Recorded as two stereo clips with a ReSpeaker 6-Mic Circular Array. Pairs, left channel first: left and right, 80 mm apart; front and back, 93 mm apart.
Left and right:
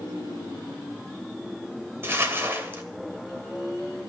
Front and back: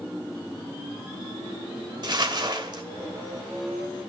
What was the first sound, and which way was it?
Crumpling, 150° right.